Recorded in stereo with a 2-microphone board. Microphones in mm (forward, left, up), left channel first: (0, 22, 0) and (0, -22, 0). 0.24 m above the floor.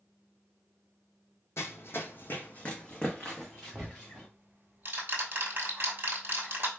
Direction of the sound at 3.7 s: 45° right (ahead or behind).